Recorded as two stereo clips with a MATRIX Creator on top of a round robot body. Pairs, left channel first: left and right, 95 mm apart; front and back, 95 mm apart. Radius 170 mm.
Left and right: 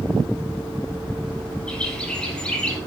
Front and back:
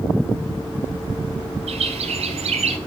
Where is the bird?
170° left, 1.2 m.